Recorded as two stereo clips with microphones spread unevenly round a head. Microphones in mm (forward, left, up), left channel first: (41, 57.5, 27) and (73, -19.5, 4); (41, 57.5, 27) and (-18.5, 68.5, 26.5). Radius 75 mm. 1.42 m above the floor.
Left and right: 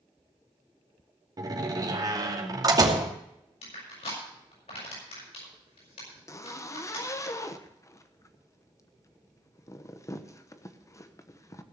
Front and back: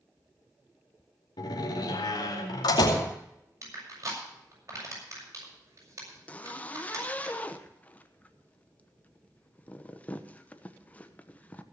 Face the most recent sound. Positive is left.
turn(degrees=55)